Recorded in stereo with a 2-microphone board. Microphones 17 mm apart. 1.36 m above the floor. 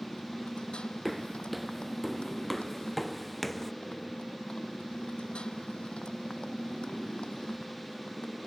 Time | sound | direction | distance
0.0 | a motorcycle | 80° left | ?
1.1 | footsteps | 5° right (ahead or behind) | ?